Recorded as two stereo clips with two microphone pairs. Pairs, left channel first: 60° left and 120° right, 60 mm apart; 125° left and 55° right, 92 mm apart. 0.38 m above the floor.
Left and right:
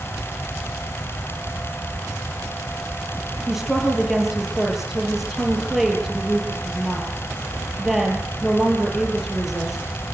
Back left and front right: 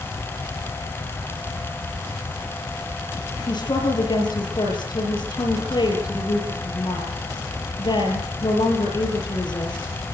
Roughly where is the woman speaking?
Behind left.